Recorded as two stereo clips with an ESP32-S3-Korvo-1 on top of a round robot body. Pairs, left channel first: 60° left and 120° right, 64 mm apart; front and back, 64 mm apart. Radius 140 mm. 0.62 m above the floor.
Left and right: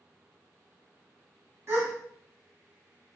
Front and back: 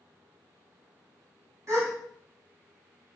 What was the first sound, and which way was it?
A gasp, 155° right.